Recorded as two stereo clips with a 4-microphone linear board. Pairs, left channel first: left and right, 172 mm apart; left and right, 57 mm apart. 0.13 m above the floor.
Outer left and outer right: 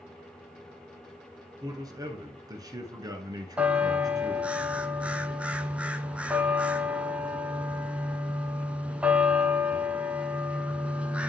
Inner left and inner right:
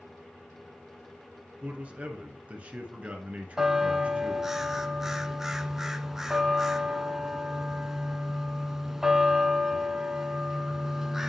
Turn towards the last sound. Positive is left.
turn(degrees=-5)  # may be behind; listen again after turning